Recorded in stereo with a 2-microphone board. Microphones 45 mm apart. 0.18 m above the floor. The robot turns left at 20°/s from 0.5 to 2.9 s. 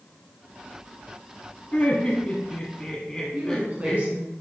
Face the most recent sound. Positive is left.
turn(degrees=-35)  # may be behind; listen again after turning